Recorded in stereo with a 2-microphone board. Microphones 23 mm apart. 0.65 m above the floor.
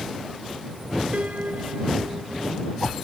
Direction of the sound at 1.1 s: 75° right (ahead or behind).